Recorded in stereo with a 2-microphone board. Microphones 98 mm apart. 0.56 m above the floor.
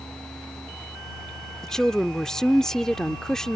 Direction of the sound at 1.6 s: 5° left (ahead or behind).